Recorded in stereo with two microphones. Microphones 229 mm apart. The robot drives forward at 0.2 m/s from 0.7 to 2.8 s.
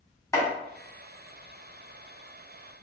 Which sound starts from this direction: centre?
Chopping, at 0.3 s.